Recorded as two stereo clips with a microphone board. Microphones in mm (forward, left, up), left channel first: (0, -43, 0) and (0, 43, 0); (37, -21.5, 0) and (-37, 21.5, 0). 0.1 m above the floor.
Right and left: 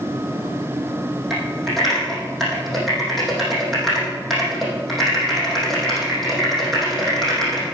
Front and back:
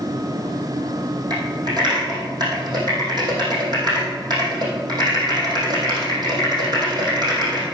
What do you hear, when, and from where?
1.3 s typing on a keyboard: straight behind, 4.5 m